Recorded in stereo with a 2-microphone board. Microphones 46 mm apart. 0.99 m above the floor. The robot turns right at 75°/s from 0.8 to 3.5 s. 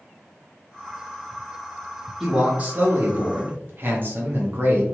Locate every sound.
2.2 s a man speaking: 170° right, 1.0 m; by 4.8 s 75° right, 1.0 m